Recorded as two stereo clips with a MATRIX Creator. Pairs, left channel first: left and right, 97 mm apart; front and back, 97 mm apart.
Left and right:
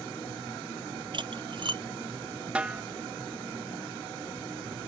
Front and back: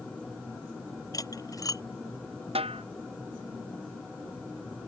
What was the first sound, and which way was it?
Cutlery clinking, 55° right.